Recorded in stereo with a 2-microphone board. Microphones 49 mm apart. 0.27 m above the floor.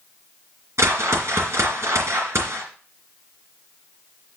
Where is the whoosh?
75° right (ahead or behind), 3 m.